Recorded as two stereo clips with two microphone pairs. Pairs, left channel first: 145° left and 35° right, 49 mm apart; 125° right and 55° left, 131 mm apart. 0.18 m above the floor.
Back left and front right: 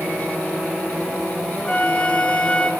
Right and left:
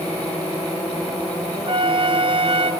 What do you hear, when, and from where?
1.7 s a flute: 90° left, 0.6 m